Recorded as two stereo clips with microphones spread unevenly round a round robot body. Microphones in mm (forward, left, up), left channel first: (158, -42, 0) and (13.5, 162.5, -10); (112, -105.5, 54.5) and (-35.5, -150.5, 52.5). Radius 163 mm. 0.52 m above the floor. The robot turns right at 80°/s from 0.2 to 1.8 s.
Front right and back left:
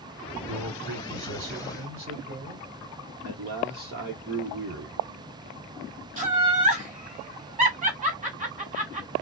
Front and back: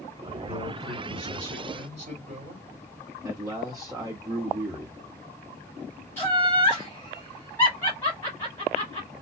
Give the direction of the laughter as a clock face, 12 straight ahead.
9 o'clock.